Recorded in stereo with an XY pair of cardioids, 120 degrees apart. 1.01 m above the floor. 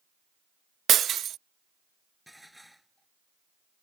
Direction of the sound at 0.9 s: 50° right.